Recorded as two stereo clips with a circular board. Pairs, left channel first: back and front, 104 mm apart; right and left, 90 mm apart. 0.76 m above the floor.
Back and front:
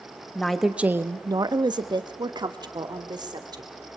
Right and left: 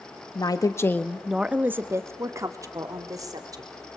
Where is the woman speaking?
100° right, 1.1 m; by 3.7 s 45° left, 3 m.